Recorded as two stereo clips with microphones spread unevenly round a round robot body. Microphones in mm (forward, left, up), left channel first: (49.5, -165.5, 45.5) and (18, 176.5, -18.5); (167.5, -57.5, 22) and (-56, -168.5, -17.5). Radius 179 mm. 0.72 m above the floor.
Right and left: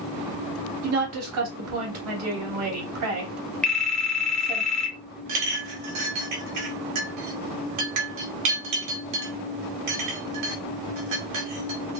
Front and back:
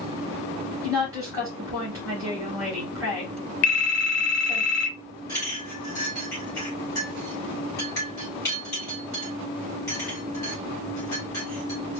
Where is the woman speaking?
130° left, 1.6 m.